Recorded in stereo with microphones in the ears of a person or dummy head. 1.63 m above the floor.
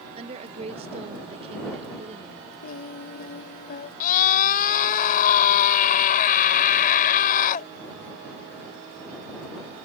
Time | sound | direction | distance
0.2 | a woman speaking | 35° right (ahead or behind) | ?
2.6 | singing | 40° left (ahead or behind) | ?
4.0 | a scream | 45° left (ahead or behind) | ?